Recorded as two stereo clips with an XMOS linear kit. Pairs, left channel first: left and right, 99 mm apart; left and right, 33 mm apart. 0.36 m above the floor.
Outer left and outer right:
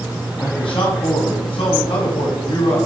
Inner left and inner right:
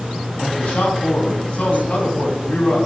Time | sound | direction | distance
0.4 | a man speaking | 70° left (ahead or behind) | 2.5 m